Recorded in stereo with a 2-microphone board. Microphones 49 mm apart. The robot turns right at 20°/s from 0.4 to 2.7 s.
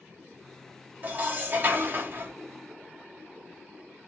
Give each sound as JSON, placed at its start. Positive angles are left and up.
{"t": 1.0, "sound": "dishes clattering", "side_deg": -35, "distance_m": 0.7}